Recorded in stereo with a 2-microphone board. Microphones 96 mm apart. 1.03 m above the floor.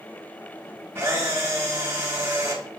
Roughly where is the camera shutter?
Right.